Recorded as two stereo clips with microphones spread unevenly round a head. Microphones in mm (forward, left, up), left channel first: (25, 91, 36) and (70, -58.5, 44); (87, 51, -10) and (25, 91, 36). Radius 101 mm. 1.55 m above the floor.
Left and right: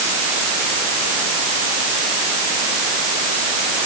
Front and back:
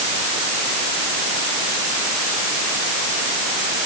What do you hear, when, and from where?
Only background noise.